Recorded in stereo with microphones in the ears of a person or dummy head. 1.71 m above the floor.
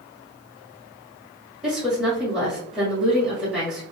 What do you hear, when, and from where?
1.6 s a woman speaking: 5° right (ahead or behind), 1.8 m